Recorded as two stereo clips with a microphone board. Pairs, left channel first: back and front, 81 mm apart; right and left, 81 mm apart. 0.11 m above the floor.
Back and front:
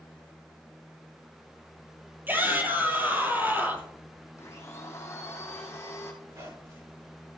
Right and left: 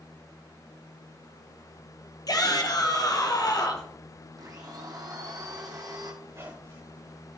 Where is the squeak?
40° left, 6 m.